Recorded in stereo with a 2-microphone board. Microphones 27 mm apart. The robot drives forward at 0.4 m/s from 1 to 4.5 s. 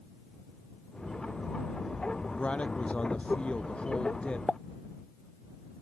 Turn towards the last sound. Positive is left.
turn(degrees=40)  # may be behind; listen again after turning